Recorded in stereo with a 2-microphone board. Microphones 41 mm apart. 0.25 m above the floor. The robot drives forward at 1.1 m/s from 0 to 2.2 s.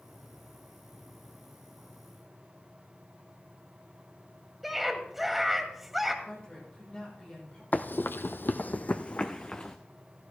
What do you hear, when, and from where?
4.6 s a scream: 5° right (ahead or behind), 1.4 m
6.2 s a woman speaking: 25° left (ahead or behind), 8 m
7.7 s running footsteps: 45° left (ahead or behind), 0.6 m; by 9.8 s 25° left (ahead or behind), 1.3 m